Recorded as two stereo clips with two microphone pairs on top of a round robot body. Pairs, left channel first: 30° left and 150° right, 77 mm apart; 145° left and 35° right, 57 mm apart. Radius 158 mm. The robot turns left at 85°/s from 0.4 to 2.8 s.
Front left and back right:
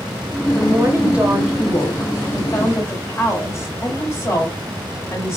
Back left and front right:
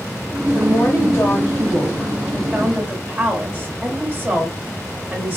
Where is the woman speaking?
170° right, 1.5 m; by 5.4 s straight ahead, 1.5 m.